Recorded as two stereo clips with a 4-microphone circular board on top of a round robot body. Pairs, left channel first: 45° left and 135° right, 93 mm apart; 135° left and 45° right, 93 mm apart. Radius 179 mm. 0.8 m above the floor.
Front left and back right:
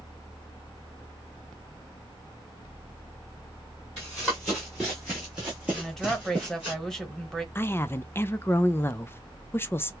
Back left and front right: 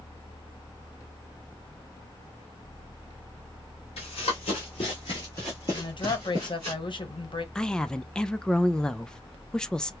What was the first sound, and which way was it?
Running footsteps, 130° left.